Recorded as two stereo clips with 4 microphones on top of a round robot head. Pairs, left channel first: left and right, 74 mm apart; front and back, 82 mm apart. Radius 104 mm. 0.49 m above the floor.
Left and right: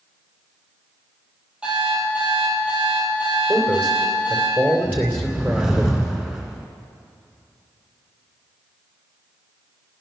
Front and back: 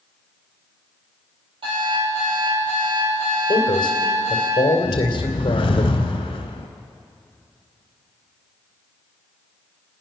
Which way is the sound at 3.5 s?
30° right.